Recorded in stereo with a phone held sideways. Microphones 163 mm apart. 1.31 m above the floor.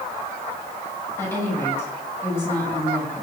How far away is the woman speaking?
About 10 m.